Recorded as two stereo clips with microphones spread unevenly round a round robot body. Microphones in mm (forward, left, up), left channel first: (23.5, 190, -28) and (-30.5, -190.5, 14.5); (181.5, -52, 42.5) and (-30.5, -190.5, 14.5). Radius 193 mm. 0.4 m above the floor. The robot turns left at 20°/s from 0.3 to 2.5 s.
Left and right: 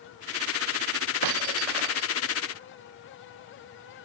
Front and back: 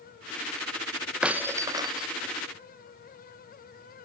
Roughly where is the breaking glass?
Ahead right.